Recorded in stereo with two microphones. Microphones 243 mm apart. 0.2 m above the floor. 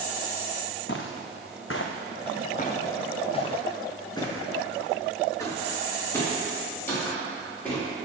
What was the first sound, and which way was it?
Footsteps, 55° left (ahead or behind).